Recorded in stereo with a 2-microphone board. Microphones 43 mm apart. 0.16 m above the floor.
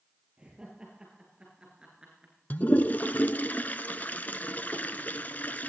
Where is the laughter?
20° right (ahead or behind), 10 m; by 2.3 s 15° right (ahead or behind), 11.5 m.